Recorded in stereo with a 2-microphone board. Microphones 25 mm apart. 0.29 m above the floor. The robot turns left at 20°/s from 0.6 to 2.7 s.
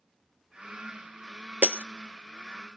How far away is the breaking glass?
About 0.7 m.